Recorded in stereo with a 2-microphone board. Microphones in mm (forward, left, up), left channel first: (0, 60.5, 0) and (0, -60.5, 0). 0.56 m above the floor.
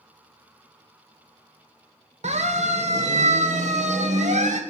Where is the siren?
70° right (ahead or behind), 2 m; by 4.6 s 75° right (ahead or behind), 3 m.